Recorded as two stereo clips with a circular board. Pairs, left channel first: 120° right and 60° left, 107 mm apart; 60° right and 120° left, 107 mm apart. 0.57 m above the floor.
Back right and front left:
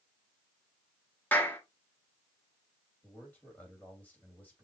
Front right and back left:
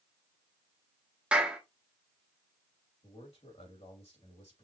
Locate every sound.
1.3 s a clap: 175° right, 1.0 m
3.0 s a man speaking: 45° right, 3 m